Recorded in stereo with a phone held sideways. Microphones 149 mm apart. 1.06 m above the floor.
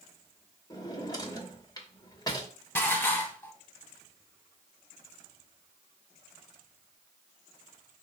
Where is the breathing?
No breathing in this recording.